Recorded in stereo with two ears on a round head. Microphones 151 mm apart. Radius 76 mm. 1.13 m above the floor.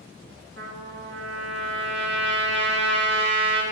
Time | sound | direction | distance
0.6 | a trumpet | 80° right | 2.5 m